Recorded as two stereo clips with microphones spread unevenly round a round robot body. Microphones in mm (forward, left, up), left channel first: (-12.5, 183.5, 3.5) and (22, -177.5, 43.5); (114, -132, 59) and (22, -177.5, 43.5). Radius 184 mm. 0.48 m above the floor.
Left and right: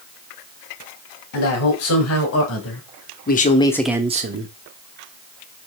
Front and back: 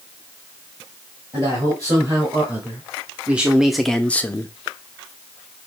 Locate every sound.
1.3 s a man speaking: 140° left, 2.5 m; by 4.5 s 40° right, 0.8 m